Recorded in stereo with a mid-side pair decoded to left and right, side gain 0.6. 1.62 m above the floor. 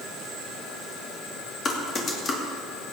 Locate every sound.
1.6 s typing on a keyboard: 40° left, 2.5 m